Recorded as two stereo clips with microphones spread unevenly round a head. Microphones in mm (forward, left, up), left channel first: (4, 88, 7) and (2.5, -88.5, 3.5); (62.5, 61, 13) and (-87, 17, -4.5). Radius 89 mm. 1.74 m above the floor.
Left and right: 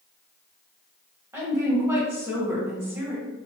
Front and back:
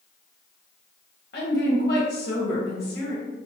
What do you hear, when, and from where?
1.3 s a woman speaking: 15° right, 1.6 m